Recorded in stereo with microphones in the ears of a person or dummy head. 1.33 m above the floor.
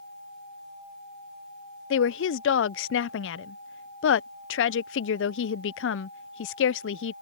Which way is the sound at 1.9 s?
65° left (ahead or behind).